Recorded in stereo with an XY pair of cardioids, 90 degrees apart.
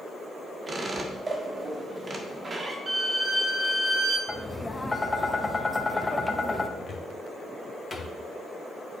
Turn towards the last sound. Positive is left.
turn(degrees=40)